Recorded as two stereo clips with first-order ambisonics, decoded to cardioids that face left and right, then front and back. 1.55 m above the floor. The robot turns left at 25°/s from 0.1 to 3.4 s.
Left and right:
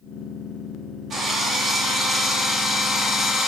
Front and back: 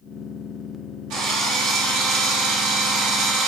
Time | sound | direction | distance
1.1 | a drill | 155° right | 3 m